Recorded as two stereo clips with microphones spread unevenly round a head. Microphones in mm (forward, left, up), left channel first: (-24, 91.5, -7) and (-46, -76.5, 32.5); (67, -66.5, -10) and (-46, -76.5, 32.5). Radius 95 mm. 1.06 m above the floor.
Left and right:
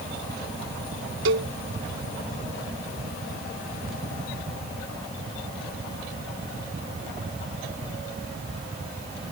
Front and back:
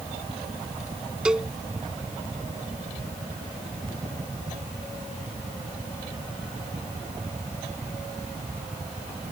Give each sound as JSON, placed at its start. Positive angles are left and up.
{"t": 1.2, "sound": "a cowbell", "azimuth_deg": -95}